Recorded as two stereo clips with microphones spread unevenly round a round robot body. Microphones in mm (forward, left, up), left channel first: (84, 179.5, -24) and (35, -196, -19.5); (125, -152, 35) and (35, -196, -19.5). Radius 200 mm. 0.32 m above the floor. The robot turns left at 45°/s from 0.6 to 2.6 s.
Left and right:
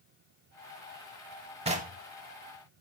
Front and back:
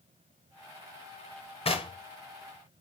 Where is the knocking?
25° right, 1.2 m; by 2.0 s 40° right, 1.2 m.